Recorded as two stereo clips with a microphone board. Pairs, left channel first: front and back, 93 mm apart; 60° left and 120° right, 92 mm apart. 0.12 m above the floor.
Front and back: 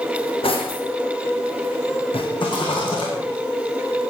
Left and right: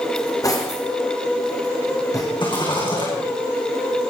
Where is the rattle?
35° left, 5.5 m.